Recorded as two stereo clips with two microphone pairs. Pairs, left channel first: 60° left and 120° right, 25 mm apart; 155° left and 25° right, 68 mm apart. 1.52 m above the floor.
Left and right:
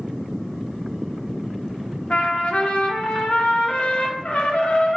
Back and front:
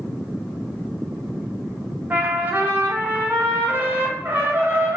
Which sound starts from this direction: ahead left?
A trumpet, at 2.1 s.